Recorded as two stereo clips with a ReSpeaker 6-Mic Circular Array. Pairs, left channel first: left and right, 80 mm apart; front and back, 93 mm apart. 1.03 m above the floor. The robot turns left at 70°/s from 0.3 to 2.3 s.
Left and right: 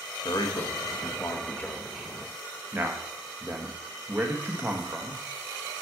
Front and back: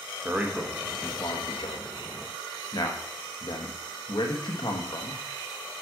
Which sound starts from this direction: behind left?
A man speaking, at 0.2 s.